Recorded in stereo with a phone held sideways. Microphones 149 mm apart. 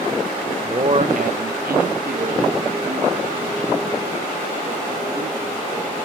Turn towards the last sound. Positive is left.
turn(degrees=-40)  # may be behind; listen again after turning